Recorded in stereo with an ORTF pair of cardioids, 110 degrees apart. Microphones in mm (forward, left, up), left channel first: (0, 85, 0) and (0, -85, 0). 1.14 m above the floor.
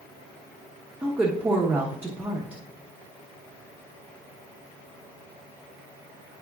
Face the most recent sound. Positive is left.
turn(degrees=-10)